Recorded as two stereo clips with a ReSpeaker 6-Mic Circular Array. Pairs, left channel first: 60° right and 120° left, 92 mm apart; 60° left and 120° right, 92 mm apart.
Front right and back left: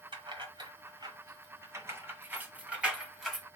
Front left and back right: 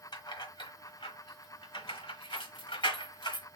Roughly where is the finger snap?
I don't hear a finger snap.